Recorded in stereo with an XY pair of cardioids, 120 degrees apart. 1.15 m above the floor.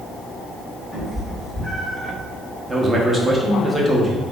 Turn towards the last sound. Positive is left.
turn(degrees=-20)